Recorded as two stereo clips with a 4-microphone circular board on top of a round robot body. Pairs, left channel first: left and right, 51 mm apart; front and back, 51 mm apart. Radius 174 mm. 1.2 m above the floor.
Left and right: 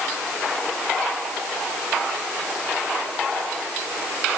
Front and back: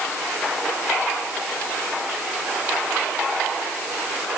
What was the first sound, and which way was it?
Only background noise.